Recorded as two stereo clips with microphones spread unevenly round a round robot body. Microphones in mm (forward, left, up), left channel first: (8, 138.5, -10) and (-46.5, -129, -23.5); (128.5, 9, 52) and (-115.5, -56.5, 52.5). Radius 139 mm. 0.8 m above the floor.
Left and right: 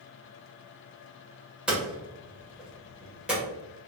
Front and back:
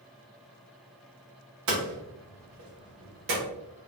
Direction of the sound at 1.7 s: 170° left.